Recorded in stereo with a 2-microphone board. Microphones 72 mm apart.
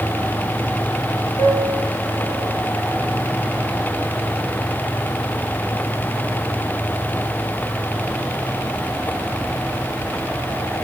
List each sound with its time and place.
1.4 s a piano: 75° left (ahead or behind), 9 m